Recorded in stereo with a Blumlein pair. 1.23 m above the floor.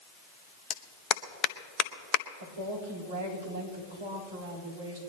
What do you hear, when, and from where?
0.7 s a clap: 35° left, 0.8 m
2.4 s a woman speaking: 70° right, 4 m